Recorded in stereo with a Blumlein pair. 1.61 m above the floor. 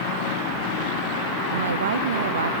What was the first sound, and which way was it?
A woman speaking, 65° right.